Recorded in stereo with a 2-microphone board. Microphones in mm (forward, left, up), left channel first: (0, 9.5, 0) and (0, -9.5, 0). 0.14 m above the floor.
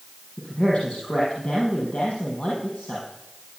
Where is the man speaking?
70° left (ahead or behind), 5.5 m.